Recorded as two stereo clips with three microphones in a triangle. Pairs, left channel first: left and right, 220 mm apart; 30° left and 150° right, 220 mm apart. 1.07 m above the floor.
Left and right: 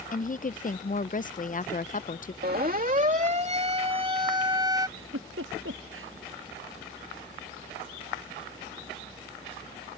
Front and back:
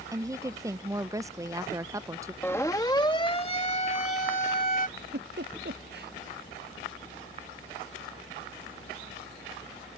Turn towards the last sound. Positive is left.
turn(degrees=-110)